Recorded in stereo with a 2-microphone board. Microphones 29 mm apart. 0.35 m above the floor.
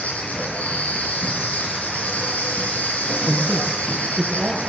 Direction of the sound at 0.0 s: 65° left (ahead or behind).